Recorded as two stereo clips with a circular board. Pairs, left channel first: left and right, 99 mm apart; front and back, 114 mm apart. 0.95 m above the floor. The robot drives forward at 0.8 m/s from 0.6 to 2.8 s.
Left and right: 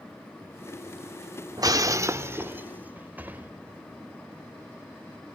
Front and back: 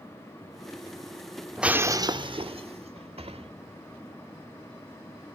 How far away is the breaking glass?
About 0.6 m.